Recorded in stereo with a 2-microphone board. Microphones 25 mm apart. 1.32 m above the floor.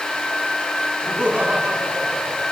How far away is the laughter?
About 3 m.